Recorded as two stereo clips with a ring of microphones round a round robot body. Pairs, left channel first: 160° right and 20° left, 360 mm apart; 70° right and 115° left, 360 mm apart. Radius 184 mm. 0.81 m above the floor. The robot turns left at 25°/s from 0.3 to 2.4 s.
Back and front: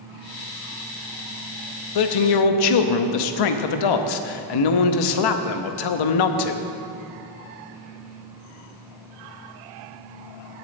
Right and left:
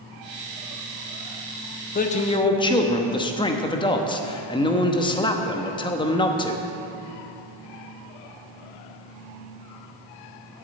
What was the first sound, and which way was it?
A man speaking, 135° right.